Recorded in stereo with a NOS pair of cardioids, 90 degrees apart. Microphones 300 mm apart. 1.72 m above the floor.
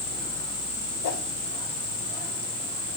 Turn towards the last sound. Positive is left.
turn(degrees=65)